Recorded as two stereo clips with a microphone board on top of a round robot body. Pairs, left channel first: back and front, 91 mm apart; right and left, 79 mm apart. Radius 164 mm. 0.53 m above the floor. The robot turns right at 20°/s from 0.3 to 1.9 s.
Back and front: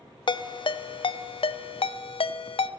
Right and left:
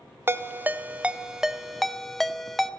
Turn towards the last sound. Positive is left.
turn(degrees=180)